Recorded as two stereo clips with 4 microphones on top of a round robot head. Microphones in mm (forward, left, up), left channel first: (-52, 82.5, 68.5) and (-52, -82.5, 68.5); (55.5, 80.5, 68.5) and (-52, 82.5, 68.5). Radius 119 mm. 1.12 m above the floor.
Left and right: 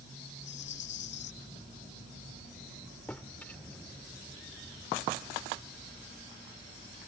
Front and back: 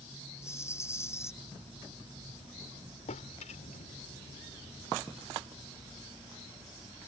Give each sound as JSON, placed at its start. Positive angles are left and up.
{"t": 0.4, "sound": "a rattle", "azimuth_deg": 65}
{"t": 3.1, "sound": "a drawer", "azimuth_deg": 5}